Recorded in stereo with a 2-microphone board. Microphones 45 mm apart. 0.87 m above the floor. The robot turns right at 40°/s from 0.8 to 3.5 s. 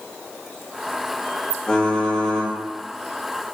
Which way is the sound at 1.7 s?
155° left.